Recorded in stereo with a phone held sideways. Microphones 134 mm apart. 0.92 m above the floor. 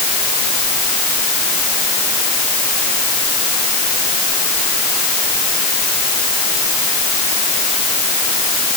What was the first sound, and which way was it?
Only background noise.